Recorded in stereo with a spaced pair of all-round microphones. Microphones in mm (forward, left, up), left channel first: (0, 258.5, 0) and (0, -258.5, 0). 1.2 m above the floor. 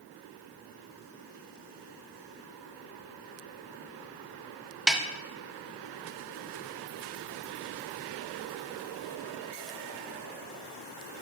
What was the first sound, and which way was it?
A snare drum, centre (ahead or behind).